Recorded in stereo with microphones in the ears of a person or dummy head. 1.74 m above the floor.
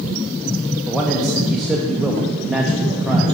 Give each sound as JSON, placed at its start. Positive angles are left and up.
{"t": 0.9, "sound": "a man speaking", "side_deg": 0, "distance_m": 0.6}